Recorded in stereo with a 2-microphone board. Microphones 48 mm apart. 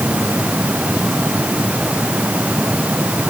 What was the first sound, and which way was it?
Only background noise.